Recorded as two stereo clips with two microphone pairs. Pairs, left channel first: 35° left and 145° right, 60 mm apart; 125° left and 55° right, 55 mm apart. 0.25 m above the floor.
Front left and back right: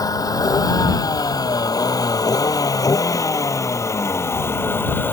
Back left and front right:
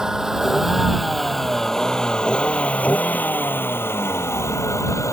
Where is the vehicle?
25° left; by 5.1 s 95° left.